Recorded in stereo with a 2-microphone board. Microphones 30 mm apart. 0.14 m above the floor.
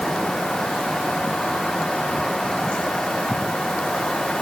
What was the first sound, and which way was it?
Only background noise.